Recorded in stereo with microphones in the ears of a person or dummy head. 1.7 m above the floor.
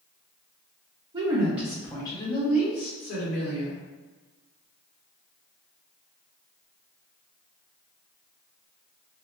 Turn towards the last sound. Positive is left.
turn(degrees=50)  # may be behind; listen again after turning